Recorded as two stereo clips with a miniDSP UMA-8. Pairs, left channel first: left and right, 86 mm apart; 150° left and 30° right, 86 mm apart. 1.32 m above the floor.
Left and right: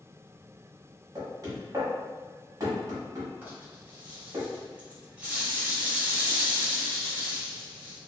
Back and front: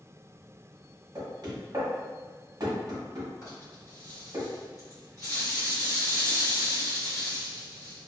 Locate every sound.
1.1 s knocking: 55° right, 1.0 m
3.4 s a rattle: 160° right, 1.4 m